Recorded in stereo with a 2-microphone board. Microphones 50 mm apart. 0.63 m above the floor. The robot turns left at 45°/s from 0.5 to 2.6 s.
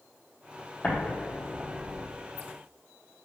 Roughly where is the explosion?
Centre.